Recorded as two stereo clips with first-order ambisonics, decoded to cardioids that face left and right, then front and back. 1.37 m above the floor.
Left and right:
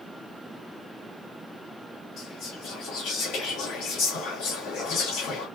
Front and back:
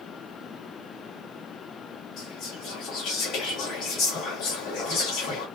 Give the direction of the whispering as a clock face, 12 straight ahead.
10 o'clock.